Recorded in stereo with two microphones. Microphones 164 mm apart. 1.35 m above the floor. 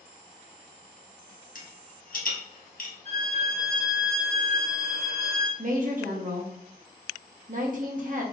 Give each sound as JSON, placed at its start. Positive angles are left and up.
{"t": 1.6, "sound": "a rattle", "side_deg": 55, "distance_m": 1.4}
{"t": 3.0, "sound": "a violin", "side_deg": -40, "distance_m": 1.2}
{"t": 5.6, "sound": "a woman speaking", "side_deg": -50, "distance_m": 0.9}